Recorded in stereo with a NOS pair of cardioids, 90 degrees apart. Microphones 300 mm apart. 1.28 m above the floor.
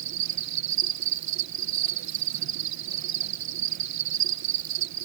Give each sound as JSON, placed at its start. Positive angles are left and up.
{"t": 0.0, "sound": "an insect", "azimuth_deg": -65}